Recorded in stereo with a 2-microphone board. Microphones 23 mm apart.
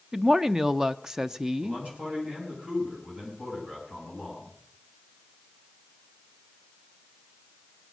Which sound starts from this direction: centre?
A woman speaking, at 0.1 s.